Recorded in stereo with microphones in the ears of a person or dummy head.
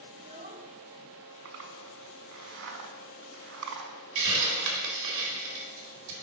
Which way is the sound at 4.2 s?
60° right (ahead or behind).